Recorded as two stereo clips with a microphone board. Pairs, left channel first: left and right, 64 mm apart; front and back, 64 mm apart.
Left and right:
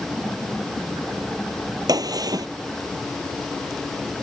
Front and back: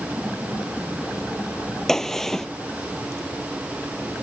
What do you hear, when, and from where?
1.9 s a gunshot: 85° right